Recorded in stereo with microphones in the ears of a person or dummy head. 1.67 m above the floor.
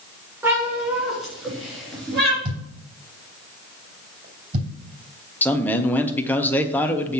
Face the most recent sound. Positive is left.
turn(degrees=10)  # may be behind; listen again after turning